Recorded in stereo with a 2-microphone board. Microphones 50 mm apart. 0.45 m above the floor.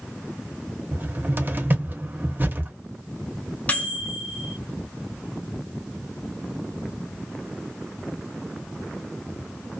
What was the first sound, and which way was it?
A cupboard door, 40° right (ahead or behind).